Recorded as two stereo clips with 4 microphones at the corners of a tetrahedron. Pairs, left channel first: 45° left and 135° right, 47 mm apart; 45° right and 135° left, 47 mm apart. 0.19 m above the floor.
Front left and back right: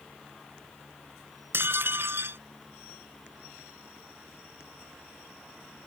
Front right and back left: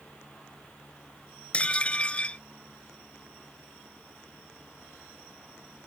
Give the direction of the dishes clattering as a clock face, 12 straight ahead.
4 o'clock.